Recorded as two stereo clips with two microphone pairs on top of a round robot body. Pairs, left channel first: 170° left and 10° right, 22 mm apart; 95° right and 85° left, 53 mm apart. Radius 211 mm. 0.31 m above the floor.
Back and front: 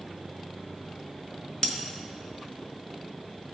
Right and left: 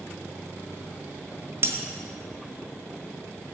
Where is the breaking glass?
125° left, 1.6 m.